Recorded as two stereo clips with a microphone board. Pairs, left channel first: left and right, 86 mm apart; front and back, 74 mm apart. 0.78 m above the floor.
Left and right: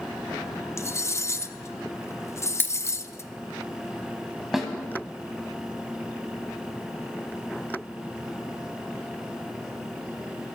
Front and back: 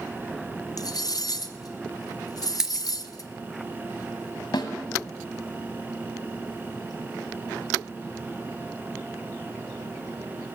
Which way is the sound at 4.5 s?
5° right.